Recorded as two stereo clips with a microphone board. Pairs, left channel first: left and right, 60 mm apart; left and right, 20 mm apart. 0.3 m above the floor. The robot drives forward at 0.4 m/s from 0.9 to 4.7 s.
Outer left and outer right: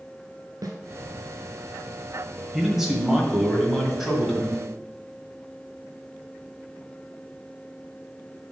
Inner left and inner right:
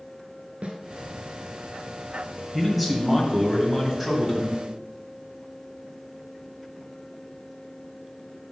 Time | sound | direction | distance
0.6 | a snare drum | 75° right (ahead or behind) | 0.9 m
2.5 | a man speaking | 5° right (ahead or behind) | 1.3 m